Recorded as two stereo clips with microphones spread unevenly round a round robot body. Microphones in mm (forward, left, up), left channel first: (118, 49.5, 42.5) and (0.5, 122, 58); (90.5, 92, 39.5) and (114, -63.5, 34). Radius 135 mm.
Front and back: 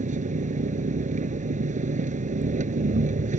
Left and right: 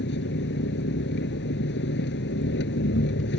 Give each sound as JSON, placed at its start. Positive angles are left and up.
{"t": 0.0, "sound": "an engine running", "azimuth_deg": 120}